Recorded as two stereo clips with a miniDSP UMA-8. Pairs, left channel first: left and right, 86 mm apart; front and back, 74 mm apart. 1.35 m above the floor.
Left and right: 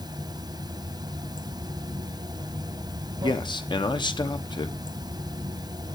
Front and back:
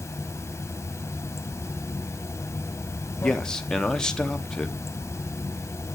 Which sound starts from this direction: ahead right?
Running water, at 0.0 s.